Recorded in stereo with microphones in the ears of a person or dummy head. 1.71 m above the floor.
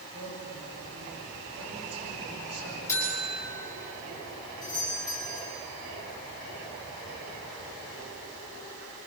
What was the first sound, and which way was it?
A man speaking, 55° right (ahead or behind).